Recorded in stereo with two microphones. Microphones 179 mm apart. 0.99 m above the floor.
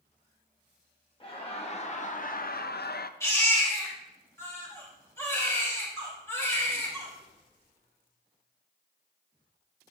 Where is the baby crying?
15° left (ahead or behind), 4 m.